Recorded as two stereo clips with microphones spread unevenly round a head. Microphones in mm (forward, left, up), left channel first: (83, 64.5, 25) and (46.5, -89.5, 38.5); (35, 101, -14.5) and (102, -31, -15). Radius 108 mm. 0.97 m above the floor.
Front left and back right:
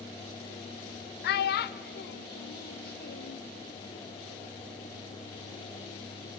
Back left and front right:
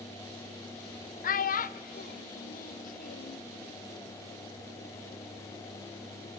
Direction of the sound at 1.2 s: 90° left.